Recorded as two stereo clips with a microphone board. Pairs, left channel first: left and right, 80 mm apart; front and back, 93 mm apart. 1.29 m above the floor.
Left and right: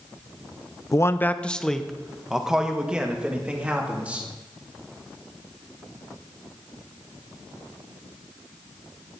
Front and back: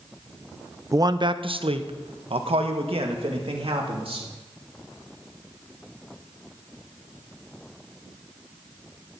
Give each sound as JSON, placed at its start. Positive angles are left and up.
{"t": 0.9, "sound": "a man speaking", "azimuth_deg": 130, "distance_m": 0.5}